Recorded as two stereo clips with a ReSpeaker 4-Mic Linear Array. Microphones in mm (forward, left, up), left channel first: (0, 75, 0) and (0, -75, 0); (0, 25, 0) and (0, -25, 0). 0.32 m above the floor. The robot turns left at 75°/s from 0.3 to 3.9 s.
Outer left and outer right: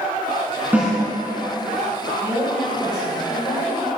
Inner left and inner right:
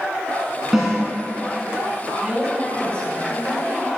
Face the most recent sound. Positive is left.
turn(degrees=80)